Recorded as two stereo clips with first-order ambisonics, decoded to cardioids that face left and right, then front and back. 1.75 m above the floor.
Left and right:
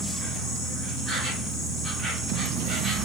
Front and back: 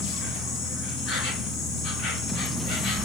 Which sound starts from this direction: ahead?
An insect, at 0.0 s.